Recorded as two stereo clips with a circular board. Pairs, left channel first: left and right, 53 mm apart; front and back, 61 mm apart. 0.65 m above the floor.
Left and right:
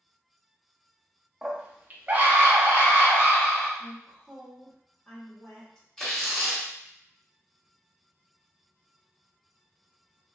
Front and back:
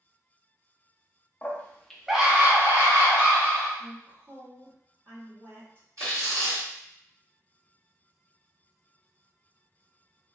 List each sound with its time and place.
1.4 s a scream: 30° right, 0.6 m; by 3.7 s 150° right, 1.1 m
3.8 s a woman speaking: 155° left, 1.3 m
6.0 s tearing paper: 170° left, 1.9 m